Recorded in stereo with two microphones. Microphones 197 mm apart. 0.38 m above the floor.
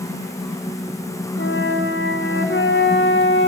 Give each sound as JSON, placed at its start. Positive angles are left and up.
{"t": 1.4, "sound": "a flute", "side_deg": 75, "distance_m": 1.9}